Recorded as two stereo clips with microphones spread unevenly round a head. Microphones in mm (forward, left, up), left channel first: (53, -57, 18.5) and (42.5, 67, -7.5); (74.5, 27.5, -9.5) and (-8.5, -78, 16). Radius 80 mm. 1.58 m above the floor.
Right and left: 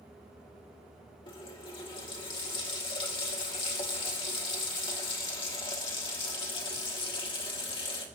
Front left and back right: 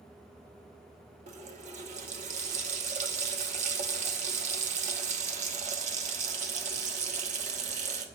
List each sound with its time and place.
1.3 s a running tap: 130° right, 0.9 m